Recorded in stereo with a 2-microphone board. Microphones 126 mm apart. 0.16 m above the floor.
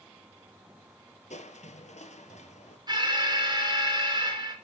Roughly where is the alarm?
Right.